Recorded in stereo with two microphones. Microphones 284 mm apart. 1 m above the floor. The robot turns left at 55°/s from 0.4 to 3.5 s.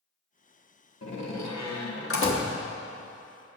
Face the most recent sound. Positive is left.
turn(degrees=-20)